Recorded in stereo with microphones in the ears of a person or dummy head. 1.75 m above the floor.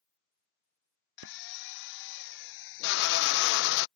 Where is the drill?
65° left (ahead or behind).